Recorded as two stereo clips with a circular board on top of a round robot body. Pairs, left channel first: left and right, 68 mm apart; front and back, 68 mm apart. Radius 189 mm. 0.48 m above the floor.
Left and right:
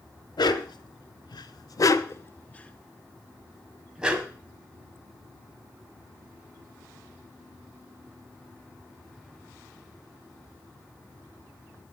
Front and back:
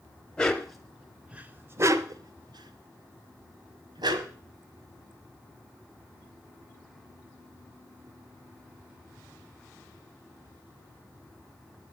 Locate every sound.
0.4 s a dog barking: 80° left, 1.2 m; by 4.3 s 165° right, 1.7 m